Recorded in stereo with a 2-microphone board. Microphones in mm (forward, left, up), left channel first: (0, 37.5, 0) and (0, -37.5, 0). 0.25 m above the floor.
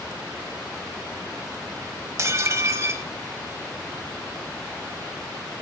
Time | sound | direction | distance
2.2 | dishes clattering | 40° right (ahead or behind) | 0.9 m